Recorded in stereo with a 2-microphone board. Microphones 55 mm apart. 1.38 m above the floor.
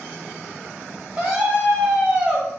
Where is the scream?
15° right (ahead or behind), 0.6 m.